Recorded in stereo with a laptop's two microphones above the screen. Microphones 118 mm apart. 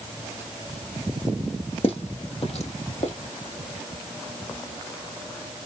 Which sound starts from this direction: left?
Footsteps, at 1.8 s.